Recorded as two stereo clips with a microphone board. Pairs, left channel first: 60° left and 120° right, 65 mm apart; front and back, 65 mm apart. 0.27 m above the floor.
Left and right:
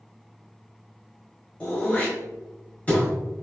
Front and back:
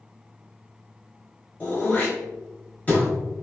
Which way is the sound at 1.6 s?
25° left.